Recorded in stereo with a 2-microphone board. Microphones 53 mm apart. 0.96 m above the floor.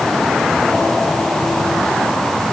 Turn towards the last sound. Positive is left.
No sound to turn to.